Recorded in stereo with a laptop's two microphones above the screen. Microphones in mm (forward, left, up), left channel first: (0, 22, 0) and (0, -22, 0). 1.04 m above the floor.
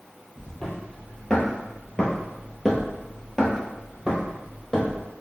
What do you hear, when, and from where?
0.4 s footsteps: 15° left (ahead or behind), 1.5 m; by 5.0 s 5° left (ahead or behind), 1.8 m